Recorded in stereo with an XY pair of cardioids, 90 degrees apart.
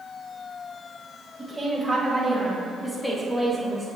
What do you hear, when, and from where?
1.4 s a woman speaking: 15° right, 2 m; by 3.9 s 30° left, 2.5 m